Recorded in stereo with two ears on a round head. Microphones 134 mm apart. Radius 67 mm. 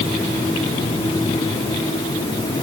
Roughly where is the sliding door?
No sliding door in this recording.